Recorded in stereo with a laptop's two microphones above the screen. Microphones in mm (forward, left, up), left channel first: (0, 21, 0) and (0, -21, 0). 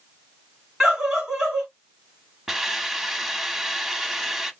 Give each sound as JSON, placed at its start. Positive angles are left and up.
{"t": 0.8, "sound": "a scream", "side_deg": -10, "distance_m": 2.0}
{"t": 2.5, "sound": "a hiss", "side_deg": -15, "distance_m": 1.2}